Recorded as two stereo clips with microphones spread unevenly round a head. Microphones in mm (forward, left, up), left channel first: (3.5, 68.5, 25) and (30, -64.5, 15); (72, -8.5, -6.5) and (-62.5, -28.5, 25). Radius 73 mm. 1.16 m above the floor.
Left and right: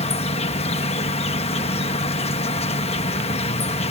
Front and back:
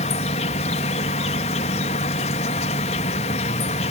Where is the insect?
55° left.